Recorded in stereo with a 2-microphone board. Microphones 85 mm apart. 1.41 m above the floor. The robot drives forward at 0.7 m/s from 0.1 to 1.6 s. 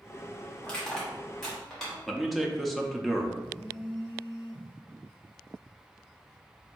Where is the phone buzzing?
20° left (ahead or behind), 1.2 m.